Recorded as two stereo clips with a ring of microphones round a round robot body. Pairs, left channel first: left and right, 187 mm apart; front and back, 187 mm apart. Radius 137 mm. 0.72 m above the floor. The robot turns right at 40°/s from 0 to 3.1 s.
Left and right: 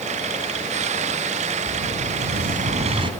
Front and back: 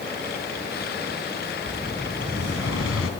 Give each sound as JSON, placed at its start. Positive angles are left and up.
{"t": 1.7, "sound": "an explosion", "azimuth_deg": -80, "distance_m": 2.5}